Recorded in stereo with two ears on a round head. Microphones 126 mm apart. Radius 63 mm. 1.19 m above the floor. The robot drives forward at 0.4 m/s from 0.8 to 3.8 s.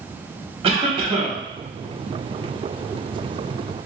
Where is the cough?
40° right (ahead or behind), 0.8 m; by 1.4 s 30° right (ahead or behind), 1.0 m.